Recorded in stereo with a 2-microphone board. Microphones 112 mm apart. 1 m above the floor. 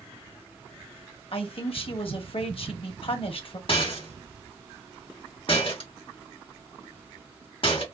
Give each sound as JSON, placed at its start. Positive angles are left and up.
{"t": 1.3, "sound": "a man speaking", "side_deg": 55, "distance_m": 0.9}
{"t": 3.7, "sound": "a rattle", "side_deg": 55, "distance_m": 1.0}